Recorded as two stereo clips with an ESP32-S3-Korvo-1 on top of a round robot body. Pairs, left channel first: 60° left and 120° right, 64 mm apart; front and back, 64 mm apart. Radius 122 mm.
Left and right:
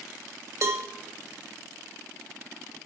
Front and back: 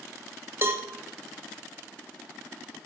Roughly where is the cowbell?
Behind right.